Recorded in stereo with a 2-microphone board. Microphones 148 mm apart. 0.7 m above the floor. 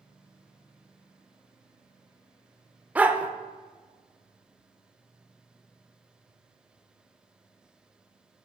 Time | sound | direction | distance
3.0 | a dog barking | 10° right (ahead or behind) | 0.5 m